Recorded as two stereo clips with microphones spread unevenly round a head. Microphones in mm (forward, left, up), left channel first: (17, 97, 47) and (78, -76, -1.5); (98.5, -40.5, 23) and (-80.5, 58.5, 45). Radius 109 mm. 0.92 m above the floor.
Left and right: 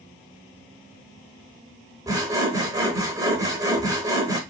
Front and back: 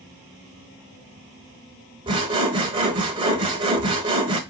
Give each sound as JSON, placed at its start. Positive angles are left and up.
{"t": 2.1, "sound": "sawing", "azimuth_deg": -155, "distance_m": 0.8}